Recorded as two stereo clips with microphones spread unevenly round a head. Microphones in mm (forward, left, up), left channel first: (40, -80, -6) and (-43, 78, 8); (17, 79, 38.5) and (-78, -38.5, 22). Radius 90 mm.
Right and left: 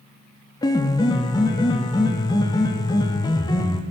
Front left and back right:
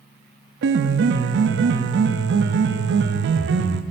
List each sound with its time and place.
0.6 s a piano: 135° right, 0.5 m